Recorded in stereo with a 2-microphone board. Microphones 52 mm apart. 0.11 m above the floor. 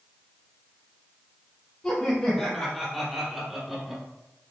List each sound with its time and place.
1.8 s laughter: 10° left (ahead or behind), 3 m; by 4.0 s 10° right (ahead or behind), 3.5 m